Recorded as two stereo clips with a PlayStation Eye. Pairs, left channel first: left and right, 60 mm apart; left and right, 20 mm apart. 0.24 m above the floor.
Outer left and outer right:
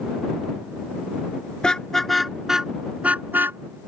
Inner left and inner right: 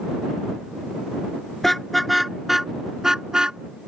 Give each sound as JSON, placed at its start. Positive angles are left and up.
{"t": 1.6, "sound": "a car horn", "side_deg": 15}